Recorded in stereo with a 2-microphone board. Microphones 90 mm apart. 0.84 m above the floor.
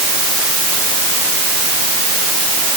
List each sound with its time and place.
Only background noise.